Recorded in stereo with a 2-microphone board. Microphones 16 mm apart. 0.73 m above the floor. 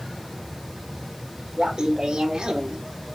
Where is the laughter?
45° right (ahead or behind), 3 m; by 2.8 s 60° right (ahead or behind), 2 m.